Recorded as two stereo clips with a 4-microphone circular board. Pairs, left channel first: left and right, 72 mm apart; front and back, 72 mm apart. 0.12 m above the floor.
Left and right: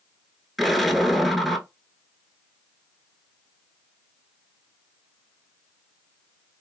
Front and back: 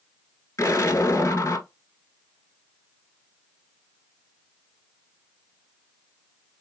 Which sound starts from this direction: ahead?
An explosion, at 0.6 s.